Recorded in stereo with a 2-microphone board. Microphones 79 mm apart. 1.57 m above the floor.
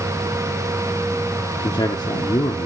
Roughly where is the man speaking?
Left.